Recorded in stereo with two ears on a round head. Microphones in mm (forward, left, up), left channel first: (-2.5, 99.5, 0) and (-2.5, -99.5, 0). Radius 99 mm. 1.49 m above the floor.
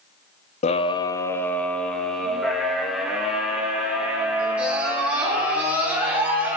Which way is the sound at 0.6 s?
30° left (ahead or behind).